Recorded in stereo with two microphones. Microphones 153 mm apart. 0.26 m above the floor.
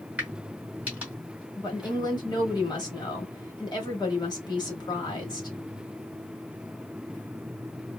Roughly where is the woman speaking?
Left.